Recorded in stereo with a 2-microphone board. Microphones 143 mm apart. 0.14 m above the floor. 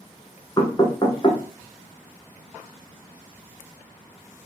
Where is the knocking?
30° left (ahead or behind), 1.1 m.